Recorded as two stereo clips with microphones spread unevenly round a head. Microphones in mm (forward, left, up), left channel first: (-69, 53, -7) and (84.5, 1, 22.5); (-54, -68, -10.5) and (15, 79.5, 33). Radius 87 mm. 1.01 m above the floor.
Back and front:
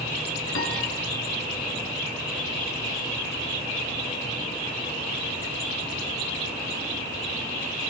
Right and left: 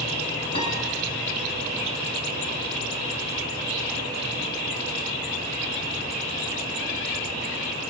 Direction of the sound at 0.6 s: 175° right.